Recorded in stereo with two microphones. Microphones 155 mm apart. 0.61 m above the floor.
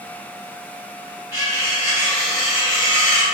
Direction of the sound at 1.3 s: 20° right (ahead or behind).